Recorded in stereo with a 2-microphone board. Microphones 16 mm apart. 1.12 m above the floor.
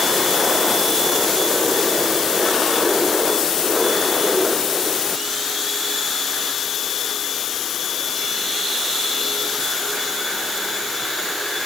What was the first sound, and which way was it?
Only background noise.